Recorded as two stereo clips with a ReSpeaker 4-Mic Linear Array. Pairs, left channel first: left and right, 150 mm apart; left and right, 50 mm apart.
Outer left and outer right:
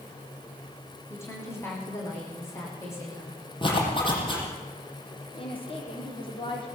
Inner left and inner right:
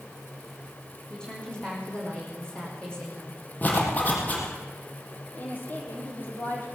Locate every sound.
1.1 s a woman speaking: 15° left (ahead or behind), 9 m
3.6 s a zipper: 35° left (ahead or behind), 7 m
5.3 s a woman speaking: 35° left (ahead or behind), 6 m